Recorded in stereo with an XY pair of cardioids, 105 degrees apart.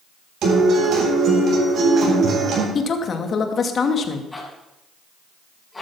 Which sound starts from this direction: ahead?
A zipper, at 4.3 s.